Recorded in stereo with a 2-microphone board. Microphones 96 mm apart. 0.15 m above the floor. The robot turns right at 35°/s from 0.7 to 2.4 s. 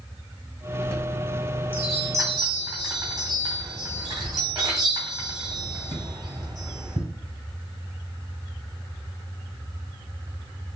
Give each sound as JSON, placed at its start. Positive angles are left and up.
{"t": 0.8, "sound": "a chime", "side_deg": 10, "distance_m": 2.0}